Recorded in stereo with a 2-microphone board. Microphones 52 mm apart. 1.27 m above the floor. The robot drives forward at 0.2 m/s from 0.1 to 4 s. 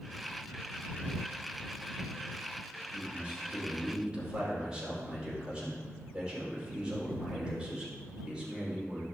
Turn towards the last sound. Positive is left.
turn(degrees=-15)  # may be behind; listen again after turning